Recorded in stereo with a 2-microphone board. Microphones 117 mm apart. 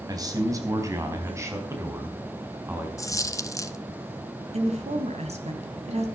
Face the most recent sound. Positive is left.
turn(degrees=-70)  # may be behind; listen again after turning